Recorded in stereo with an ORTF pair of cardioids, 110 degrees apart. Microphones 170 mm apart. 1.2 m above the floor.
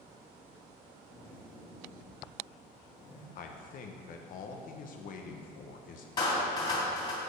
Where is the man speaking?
55° left, 0.8 m.